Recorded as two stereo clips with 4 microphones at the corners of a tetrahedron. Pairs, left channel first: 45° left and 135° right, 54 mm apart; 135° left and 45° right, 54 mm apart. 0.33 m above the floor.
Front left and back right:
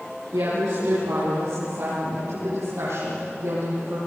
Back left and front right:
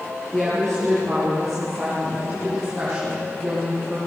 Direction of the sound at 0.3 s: 140° right.